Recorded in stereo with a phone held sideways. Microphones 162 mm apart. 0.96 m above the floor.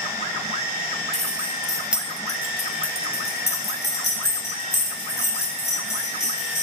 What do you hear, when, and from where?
1.1 s keys jangling: 40° right (ahead or behind), 1.5 m; by 6.6 s 80° left, 5 m